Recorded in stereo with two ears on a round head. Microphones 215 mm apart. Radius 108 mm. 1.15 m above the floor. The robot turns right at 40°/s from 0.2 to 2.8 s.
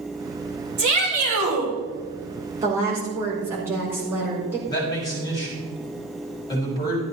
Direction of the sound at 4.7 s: 15° left (ahead or behind).